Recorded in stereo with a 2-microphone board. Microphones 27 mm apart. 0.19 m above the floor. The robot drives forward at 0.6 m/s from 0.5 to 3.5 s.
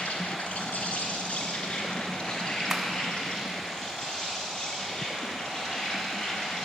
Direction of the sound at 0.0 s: 60° left (ahead or behind).